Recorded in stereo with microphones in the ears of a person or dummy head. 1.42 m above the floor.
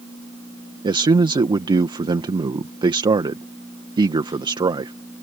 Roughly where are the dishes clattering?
No dishes clattering in this recording.